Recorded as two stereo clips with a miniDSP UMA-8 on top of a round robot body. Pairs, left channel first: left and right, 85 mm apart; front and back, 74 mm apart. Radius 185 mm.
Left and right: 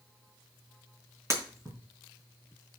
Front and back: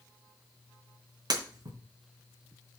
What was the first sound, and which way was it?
Breaking glass, 150° right.